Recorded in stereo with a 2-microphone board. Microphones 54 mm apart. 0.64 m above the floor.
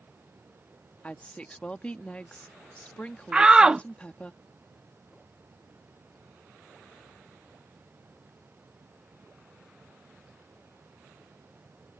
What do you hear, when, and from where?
1.0 s a woman speaking: 20° left (ahead or behind)
3.3 s a shout: 15° right (ahead or behind)